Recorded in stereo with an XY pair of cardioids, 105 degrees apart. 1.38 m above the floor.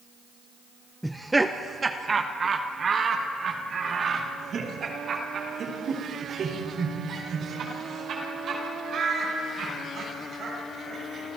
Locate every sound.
1.0 s laughter: straight ahead, 0.7 m; by 11.3 s 55° right, 7.5 m